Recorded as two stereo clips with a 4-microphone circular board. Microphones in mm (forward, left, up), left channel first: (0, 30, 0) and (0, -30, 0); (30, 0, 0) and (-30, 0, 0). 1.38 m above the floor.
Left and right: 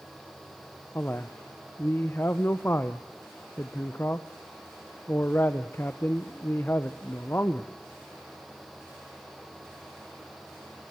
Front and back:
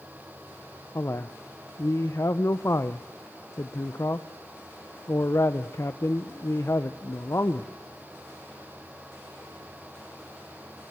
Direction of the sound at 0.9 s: 35° left.